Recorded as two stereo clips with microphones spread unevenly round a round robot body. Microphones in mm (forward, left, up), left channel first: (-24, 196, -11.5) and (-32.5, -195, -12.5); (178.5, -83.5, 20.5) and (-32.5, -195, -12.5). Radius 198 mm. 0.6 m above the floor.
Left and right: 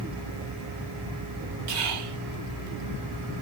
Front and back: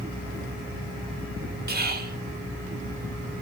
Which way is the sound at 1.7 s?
110° right.